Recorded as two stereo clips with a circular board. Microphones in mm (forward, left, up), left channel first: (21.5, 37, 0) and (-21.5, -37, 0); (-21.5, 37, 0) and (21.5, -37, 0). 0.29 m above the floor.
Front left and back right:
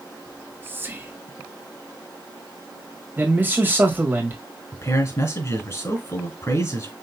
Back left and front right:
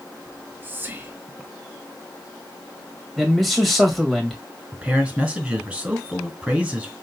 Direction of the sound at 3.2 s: 150° right.